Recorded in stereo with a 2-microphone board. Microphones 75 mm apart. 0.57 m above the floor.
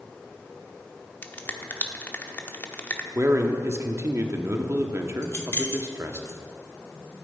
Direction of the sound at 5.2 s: 30° left (ahead or behind).